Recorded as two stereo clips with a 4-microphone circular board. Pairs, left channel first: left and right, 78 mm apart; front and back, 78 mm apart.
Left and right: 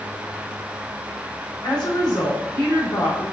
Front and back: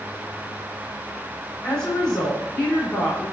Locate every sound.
1.6 s a woman speaking: 80° left, 3 m